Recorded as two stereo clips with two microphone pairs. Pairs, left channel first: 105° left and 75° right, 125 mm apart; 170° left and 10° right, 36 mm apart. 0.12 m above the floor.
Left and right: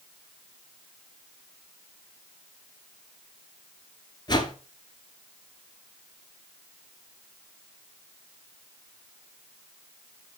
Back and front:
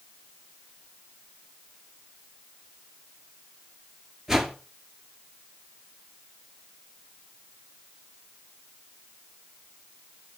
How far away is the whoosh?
About 1.9 m.